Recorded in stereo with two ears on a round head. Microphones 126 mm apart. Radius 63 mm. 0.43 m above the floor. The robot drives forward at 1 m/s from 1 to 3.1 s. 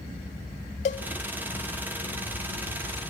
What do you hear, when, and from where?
0.8 s a cowbell: 50° left (ahead or behind), 0.8 m